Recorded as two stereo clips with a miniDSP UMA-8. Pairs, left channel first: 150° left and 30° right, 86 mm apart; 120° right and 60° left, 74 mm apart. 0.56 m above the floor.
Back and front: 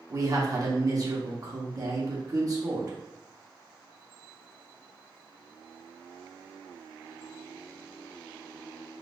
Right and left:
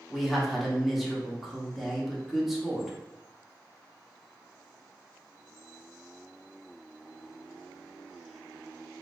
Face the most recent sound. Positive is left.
turn(degrees=-30)